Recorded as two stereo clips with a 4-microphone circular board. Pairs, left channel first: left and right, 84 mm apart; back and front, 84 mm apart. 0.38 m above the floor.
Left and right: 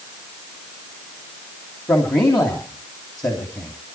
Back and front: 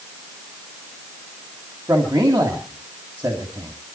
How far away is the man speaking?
About 3 m.